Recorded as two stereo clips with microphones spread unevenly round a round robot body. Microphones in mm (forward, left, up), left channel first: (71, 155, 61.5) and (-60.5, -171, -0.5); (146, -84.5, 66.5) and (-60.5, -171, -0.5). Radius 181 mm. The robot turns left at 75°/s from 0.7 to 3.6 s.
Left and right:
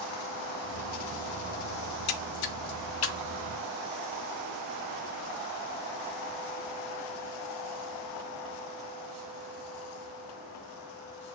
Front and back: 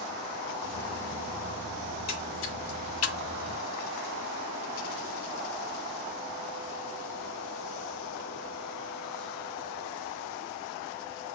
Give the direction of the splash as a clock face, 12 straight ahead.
9 o'clock.